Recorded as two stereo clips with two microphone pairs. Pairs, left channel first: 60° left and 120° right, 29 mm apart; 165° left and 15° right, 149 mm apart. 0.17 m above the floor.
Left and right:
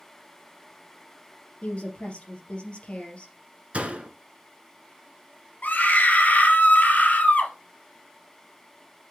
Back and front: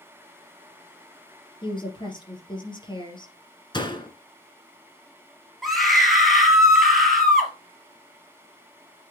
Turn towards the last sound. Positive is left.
turn(degrees=75)